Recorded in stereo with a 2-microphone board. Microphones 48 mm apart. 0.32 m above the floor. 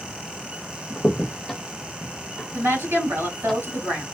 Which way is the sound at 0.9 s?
Centre (ahead or behind).